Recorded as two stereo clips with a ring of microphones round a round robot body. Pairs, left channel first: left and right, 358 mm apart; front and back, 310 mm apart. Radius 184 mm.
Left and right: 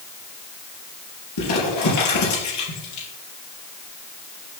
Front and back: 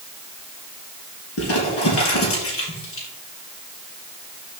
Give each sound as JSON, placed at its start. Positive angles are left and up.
{"t": 1.4, "sound": "crumpling", "azimuth_deg": 45, "distance_m": 4.0}